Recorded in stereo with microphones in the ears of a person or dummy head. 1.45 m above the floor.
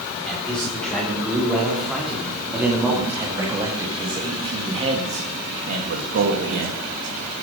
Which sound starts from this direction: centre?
A man speaking, at 0.3 s.